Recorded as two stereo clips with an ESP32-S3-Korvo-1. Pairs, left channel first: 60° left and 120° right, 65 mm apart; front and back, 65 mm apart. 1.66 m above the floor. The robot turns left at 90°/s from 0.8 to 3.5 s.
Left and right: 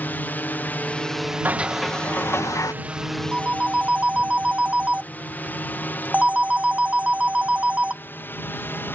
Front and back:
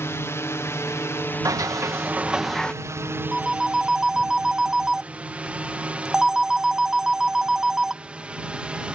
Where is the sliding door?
175° right; by 2.7 s 70° left.